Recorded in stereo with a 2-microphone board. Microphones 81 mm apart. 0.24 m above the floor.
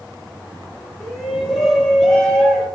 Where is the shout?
5° left (ahead or behind), 8 m.